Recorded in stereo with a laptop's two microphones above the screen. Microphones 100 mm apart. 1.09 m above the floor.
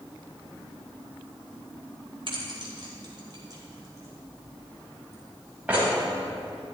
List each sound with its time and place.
2.3 s keys jangling: 60° right (ahead or behind), 3 m; by 5.9 s 15° right (ahead or behind), 4.5 m